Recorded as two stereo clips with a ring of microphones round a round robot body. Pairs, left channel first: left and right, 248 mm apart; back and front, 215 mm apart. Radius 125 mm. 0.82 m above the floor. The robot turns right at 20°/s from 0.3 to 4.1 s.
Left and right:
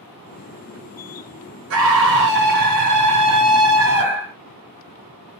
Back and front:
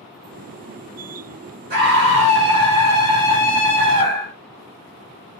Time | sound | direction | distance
1.7 | a scream | 60° right | 1.5 m